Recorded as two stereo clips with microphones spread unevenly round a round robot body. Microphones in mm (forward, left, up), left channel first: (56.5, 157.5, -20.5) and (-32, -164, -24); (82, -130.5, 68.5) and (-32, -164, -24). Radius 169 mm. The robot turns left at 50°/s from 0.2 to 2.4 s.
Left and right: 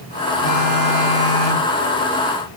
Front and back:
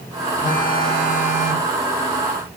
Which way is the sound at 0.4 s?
40° left.